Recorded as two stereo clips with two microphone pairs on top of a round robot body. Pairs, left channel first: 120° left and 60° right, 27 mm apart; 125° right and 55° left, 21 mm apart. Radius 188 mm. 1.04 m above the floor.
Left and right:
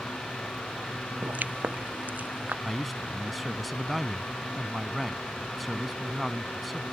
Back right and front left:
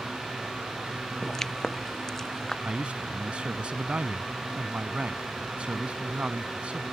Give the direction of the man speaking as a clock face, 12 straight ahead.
11 o'clock.